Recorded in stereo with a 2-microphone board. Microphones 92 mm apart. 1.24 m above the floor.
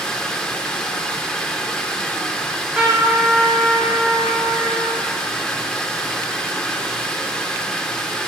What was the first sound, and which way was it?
Running water, 10° left (ahead or behind).